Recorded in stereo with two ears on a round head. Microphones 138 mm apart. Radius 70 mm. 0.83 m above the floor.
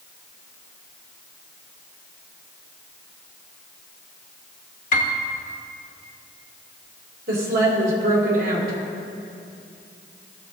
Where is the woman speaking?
65° right (ahead or behind), 2.5 m.